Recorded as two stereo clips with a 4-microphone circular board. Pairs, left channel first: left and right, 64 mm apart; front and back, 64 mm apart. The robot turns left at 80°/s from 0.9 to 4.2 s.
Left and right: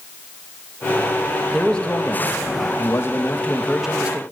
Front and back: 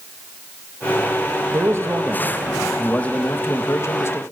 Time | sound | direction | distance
1.5 | a man speaking | straight behind | 1.0 m